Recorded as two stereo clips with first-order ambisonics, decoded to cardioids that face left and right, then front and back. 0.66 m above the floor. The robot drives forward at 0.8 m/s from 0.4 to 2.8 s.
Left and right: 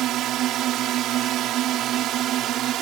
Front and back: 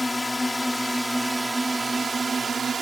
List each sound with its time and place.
0.0 s a drone: 80° right; by 2.8 s 115° right